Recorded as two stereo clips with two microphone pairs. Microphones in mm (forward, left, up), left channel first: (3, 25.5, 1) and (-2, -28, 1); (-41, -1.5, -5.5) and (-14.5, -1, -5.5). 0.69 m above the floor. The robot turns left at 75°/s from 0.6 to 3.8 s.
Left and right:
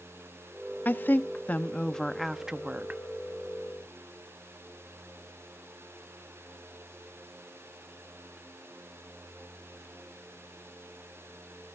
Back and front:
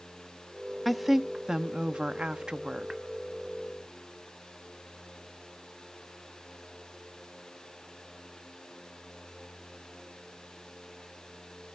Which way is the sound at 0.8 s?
95° left.